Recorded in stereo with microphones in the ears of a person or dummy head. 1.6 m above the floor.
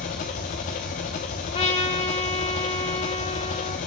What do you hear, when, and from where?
0.0 s an engine running: 35° left (ahead or behind), 0.8 m
1.5 s a trumpet: 35° left (ahead or behind), 2.5 m